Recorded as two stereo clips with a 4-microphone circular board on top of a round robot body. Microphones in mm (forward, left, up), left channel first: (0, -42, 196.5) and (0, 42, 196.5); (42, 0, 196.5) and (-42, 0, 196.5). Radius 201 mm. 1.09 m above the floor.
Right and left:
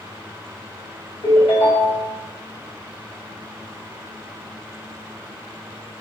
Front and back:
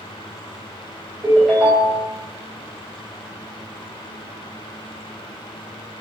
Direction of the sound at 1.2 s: 90° right.